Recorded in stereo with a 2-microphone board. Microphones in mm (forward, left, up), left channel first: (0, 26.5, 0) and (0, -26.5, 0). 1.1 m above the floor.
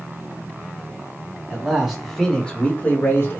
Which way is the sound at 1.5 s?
15° right (ahead or behind).